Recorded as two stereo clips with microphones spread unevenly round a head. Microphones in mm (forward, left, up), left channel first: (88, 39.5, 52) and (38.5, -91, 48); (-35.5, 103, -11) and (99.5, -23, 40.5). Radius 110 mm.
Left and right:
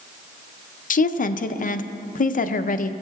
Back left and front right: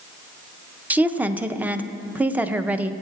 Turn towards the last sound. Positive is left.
turn(degrees=45)